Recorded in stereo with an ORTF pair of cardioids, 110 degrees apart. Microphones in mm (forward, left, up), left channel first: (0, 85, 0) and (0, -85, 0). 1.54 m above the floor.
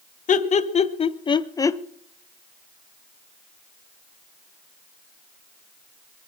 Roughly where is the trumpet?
No trumpet in this recording.